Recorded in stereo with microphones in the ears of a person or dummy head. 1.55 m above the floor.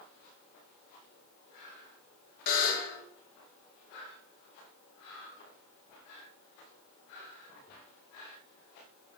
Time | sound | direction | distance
2.5 | a buzzer | 50° left (ahead or behind) | 2 m